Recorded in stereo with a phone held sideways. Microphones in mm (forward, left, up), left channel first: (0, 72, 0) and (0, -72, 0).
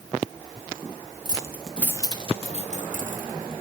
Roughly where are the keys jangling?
Right.